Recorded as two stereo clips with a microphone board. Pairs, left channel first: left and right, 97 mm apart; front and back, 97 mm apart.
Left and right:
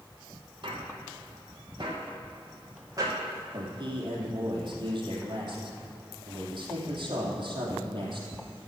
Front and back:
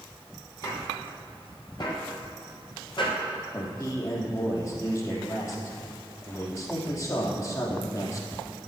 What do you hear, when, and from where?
0.6 s footsteps: 55° right, 5 m; by 3.2 s 35° right, 4.5 m
3.5 s a man speaking: 55° right, 3.5 m